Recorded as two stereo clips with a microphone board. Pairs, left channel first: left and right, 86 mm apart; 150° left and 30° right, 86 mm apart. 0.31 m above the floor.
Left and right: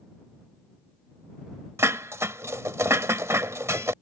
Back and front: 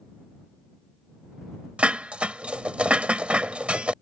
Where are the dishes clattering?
95° right.